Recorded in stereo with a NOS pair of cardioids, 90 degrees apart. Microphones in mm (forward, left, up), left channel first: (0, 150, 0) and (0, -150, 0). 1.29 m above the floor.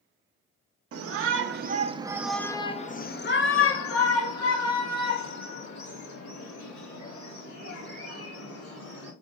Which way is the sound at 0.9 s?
50° right.